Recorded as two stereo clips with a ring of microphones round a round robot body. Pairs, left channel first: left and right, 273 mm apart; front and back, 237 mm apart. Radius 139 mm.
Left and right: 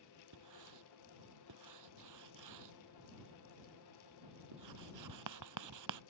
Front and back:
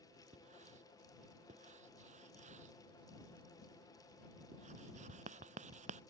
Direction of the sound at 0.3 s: 115° right.